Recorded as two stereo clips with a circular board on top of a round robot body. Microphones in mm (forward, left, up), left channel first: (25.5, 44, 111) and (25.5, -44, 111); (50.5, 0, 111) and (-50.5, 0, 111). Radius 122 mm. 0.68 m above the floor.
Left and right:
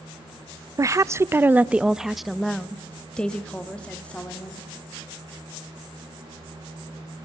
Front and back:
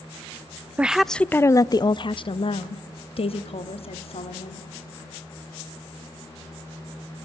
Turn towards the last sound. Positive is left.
turn(degrees=15)